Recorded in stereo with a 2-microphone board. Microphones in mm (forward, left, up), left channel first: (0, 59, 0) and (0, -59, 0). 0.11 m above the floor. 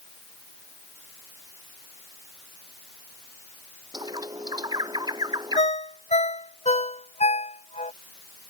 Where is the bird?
35° right (ahead or behind).